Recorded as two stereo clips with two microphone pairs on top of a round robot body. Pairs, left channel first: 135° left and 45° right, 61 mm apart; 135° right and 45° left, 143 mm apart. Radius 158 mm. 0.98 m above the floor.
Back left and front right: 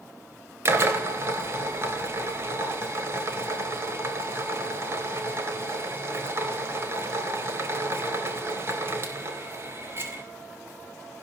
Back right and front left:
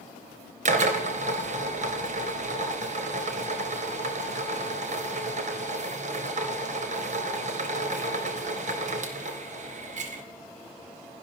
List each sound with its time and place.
0.7 s a drill: 5° left, 3 m